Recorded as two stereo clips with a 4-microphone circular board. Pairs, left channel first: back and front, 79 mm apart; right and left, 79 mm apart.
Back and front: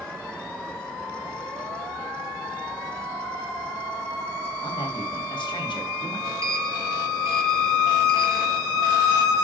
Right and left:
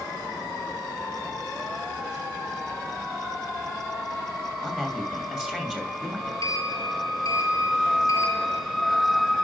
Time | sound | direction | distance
4.6 | a man speaking | 170° left | 3 m
6.4 | a sliding door | 50° right | 1.4 m